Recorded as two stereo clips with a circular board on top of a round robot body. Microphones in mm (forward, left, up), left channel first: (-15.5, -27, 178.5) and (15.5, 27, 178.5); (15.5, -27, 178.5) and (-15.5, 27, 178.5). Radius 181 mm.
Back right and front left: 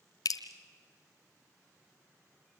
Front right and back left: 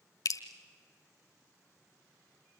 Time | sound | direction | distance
0.2 | dripping | 90° right | 0.8 m